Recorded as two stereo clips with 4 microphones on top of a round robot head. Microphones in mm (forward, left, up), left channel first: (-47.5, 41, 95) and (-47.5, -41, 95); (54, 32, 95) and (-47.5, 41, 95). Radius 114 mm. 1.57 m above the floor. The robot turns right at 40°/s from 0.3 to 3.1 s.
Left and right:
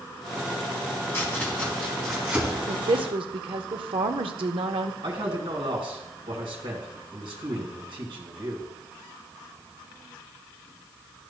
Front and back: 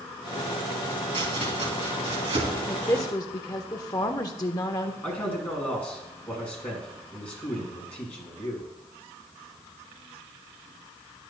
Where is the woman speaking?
80° right, 0.5 m; by 4.9 s 65° right, 0.5 m.